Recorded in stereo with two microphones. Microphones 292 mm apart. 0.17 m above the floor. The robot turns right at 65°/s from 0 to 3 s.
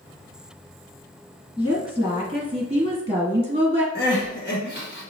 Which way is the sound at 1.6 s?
Centre (ahead or behind).